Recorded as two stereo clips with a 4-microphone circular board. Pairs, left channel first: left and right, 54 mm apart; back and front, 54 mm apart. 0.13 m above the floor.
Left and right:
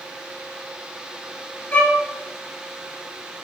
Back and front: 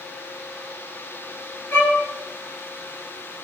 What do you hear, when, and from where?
1.7 s a violin: 150° left, 2.5 m